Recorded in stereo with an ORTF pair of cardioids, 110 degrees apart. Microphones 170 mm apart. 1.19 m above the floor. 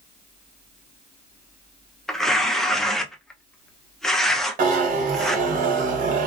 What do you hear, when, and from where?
2.1 s tearing paper: 5° left, 0.5 m
4.6 s a zipper: 55° right, 1.0 m